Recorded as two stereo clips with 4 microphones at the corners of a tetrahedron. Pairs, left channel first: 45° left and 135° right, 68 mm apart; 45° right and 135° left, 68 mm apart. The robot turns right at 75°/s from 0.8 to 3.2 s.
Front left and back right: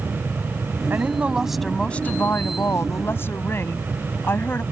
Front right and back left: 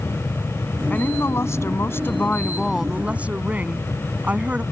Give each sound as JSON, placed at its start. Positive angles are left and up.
{"t": 0.9, "sound": "a woman speaking", "azimuth_deg": -95}